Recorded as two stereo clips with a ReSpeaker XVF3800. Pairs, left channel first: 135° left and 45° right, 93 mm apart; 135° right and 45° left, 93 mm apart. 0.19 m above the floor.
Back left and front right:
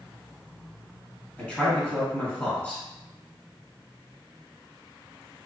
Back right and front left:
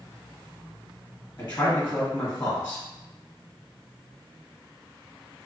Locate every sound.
1.4 s a man speaking: 175° right, 1.3 m